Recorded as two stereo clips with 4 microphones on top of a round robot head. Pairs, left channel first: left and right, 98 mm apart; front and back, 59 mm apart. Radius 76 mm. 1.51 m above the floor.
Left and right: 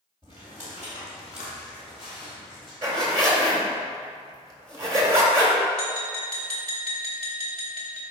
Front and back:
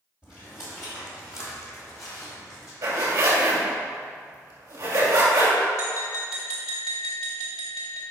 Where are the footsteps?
30° right, 2.5 m; by 2.7 s straight ahead, 4 m.